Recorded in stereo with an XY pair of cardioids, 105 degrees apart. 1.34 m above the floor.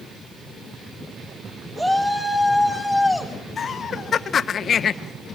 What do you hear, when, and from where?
1.8 s a shout: 5° right, 4.5 m; by 3.3 s 15° left, 5 m
3.6 s laughter: 50° left, 1.2 m